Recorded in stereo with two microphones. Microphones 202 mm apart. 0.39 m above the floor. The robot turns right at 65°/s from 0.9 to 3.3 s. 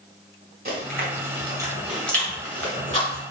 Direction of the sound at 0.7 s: 45° right (ahead or behind).